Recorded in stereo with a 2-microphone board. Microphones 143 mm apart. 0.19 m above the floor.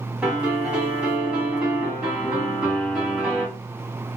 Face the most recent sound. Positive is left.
turn(degrees=-10)  # may be behind; listen again after turning